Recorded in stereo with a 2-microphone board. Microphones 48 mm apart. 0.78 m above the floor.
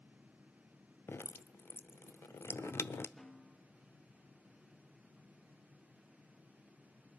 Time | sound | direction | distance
1.1 | dripping | 55° left (ahead or behind) | 0.6 m
3.2 | a snare drum | 15° left (ahead or behind) | 1.1 m